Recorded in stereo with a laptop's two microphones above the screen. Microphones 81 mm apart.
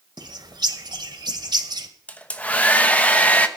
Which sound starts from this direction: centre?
A hair dryer, at 2.1 s.